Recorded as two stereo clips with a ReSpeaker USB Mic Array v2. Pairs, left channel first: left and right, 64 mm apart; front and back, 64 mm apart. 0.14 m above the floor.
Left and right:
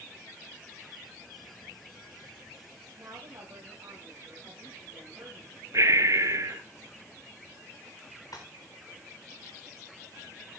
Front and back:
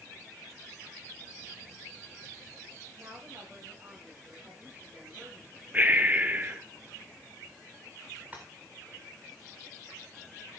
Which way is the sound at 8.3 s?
115° left.